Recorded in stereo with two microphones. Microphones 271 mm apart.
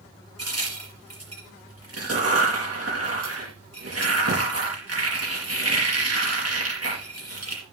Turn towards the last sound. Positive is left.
turn(degrees=-60)  # may be behind; listen again after turning